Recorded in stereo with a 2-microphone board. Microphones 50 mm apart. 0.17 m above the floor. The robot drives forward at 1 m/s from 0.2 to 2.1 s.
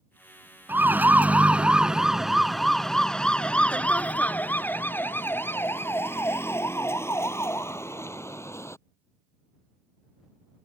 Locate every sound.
0.7 s a siren: 45° right (ahead or behind); by 8.8 s 70° left (ahead or behind)